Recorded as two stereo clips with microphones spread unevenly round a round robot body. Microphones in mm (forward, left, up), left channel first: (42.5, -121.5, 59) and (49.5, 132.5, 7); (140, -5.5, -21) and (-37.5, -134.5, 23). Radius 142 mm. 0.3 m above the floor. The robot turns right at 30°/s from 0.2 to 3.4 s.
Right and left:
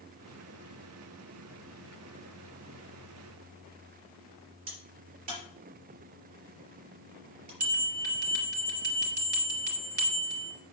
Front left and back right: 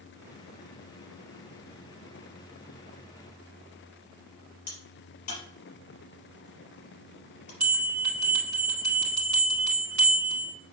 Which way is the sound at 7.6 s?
150° left.